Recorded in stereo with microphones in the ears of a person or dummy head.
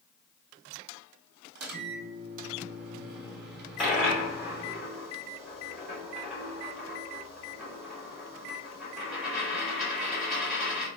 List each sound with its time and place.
1.6 s a microwave: 65° right (ahead or behind), 1.7 m
3.8 s a dropped coin: centre (ahead or behind), 1.5 m